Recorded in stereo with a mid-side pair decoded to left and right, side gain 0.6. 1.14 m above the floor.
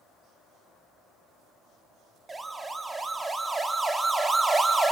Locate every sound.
2.3 s a siren: 20° right, 3 m